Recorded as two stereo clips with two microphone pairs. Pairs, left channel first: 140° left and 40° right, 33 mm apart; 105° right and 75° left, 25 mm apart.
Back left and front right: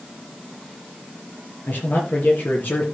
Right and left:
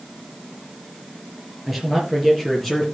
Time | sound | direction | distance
1.7 | a man speaking | 160° left | 4.5 m